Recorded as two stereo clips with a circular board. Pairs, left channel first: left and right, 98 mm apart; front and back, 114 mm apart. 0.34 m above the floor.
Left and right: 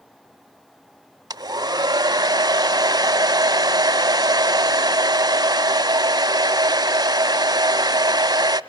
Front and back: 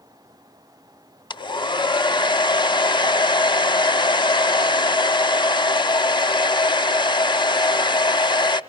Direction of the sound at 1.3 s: 45° right.